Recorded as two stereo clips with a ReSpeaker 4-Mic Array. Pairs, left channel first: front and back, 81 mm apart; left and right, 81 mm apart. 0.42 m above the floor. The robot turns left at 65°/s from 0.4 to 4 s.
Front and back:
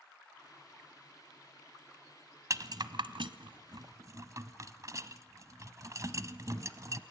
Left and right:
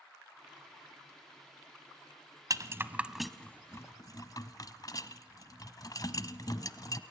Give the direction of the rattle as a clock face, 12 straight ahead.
4 o'clock.